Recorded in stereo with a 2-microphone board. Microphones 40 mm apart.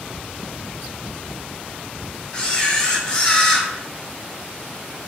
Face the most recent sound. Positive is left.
turn(degrees=30)  # may be behind; listen again after turning